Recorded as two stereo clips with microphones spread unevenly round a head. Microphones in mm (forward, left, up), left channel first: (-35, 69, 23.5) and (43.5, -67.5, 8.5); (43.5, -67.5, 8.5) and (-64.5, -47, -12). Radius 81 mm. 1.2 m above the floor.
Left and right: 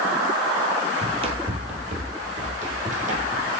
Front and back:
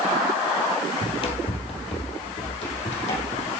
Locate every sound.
1.0 s running footsteps: 5° right, 2.0 m; by 3.5 s 15° right, 4 m